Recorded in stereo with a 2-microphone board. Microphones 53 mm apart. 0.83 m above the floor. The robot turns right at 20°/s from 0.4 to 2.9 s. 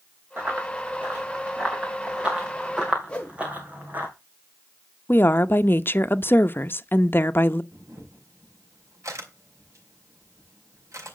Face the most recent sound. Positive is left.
turn(degrees=-75)  # may be behind; listen again after turning